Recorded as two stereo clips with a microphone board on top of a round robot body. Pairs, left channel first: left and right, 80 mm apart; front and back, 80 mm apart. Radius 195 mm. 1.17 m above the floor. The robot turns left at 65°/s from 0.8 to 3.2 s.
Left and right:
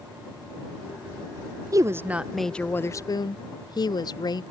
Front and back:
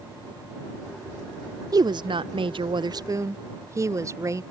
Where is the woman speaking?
140° right; by 4.4 s 125° left.